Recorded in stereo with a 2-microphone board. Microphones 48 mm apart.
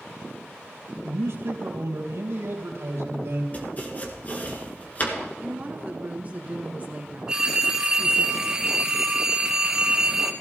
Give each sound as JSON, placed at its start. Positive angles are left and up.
{"t": 1.0, "sound": "a man speaking", "side_deg": -70, "distance_m": 3.5}
{"t": 3.5, "sound": "chopping", "side_deg": 35, "distance_m": 1.9}
{"t": 5.4, "sound": "a woman speaking", "side_deg": -35, "distance_m": 1.5}
{"t": 7.3, "sound": "a phone ringing", "side_deg": -15, "distance_m": 1.1}